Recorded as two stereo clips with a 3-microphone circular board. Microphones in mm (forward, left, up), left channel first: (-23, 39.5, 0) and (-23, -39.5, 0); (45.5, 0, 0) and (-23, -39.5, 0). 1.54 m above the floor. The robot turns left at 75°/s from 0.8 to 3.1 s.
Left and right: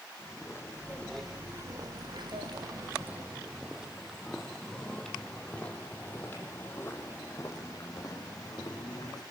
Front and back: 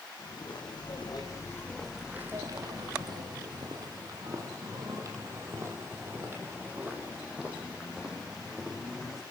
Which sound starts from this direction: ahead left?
Footsteps, at 0.2 s.